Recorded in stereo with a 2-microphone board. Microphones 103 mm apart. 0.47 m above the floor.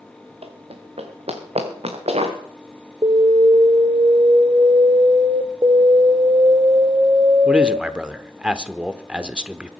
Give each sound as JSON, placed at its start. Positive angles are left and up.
{"t": 0.4, "sound": "running footsteps", "side_deg": -70, "distance_m": 2.5}
{"t": 3.0, "sound": "an alarm", "side_deg": -50, "distance_m": 1.1}
{"t": 5.6, "sound": "an alarm", "side_deg": -40, "distance_m": 0.8}
{"t": 7.5, "sound": "a man speaking", "side_deg": -10, "distance_m": 1.0}